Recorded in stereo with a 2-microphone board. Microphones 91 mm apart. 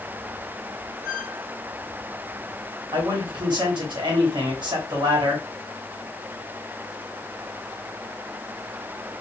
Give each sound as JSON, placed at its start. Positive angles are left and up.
{"t": 1.0, "sound": "a squeak", "side_deg": -40, "distance_m": 2.5}
{"t": 2.9, "sound": "a man speaking", "side_deg": -55, "distance_m": 2.0}